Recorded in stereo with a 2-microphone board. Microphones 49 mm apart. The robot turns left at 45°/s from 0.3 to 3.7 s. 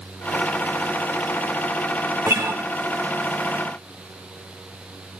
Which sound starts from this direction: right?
A guitar, at 2.3 s.